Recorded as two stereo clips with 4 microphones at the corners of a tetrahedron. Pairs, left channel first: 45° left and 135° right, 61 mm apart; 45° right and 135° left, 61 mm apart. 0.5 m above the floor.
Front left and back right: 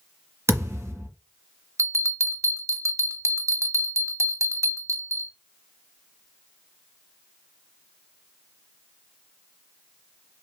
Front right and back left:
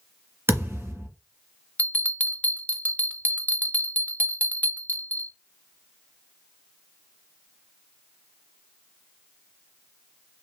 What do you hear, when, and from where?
0.5 s a thud: 175° right, 1.8 m
1.8 s a bell: 105° right, 0.6 m